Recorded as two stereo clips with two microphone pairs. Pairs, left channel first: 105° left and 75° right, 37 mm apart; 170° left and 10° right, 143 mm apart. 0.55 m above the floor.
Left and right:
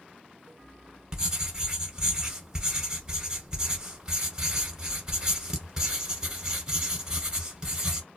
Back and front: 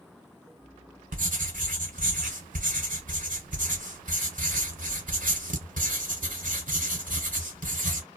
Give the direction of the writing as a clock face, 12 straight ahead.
12 o'clock.